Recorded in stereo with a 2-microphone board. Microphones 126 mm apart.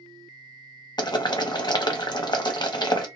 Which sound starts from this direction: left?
Boiling, at 1.0 s.